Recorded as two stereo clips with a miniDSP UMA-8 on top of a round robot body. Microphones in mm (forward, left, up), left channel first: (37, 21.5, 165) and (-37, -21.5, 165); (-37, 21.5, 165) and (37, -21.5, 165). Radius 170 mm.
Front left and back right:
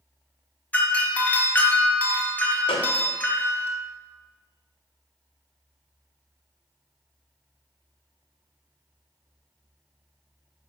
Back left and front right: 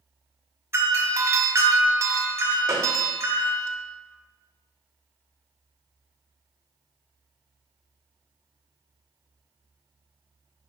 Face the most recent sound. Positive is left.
turn(degrees=30)